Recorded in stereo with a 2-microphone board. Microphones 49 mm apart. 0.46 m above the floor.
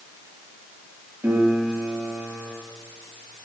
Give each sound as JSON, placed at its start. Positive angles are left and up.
{"t": 1.2, "sound": "a piano", "side_deg": -75, "distance_m": 9.0}